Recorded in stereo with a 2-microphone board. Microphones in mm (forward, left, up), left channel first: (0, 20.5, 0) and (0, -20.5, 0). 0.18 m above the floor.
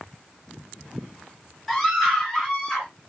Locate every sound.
1.7 s a scream: centre (ahead or behind), 1.6 m; by 2.9 s 15° left (ahead or behind), 2 m